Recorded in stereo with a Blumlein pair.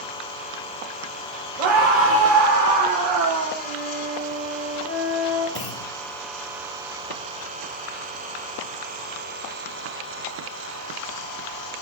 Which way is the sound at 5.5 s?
40° left.